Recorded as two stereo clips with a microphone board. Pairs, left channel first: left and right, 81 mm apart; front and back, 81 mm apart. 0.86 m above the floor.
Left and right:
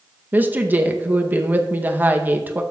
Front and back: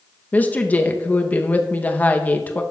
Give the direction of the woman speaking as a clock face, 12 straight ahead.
2 o'clock.